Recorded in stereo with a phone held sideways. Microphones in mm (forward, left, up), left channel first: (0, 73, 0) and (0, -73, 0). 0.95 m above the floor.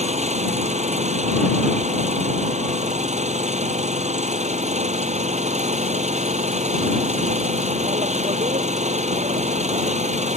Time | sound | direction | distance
0.0 | an engine running | 50° right (ahead or behind) | ?